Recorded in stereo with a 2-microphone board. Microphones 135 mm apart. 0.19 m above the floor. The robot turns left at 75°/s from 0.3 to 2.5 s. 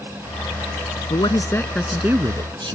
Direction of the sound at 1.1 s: 55° left.